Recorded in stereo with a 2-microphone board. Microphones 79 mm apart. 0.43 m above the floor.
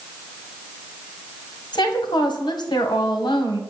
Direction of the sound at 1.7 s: 70° left (ahead or behind).